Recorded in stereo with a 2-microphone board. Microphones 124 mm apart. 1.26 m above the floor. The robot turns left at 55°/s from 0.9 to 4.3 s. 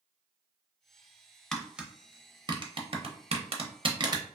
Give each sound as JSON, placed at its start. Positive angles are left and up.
{"t": 1.5, "sound": "tapping", "side_deg": 5, "distance_m": 0.6}